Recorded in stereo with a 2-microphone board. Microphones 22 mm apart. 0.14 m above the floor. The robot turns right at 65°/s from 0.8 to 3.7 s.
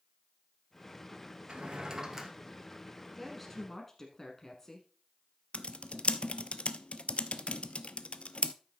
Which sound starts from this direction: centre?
A woman speaking, at 3.2 s.